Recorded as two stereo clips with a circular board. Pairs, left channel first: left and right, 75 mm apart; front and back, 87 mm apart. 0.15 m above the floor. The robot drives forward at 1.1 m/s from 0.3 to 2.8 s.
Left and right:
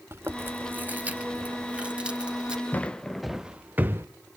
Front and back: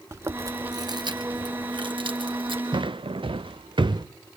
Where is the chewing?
135° right, 1.2 m; by 2.6 s 170° right, 3.5 m.